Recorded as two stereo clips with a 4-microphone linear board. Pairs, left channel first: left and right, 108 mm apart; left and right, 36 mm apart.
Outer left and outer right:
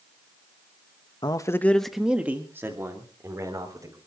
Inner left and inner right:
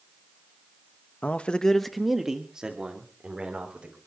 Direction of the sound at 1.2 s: 40° left (ahead or behind).